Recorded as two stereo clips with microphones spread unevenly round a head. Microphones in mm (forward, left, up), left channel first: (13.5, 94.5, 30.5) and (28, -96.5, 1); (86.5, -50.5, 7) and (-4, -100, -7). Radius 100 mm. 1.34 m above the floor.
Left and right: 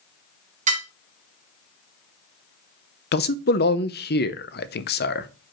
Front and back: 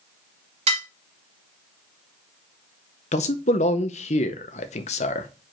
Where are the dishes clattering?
145° right, 1.5 m.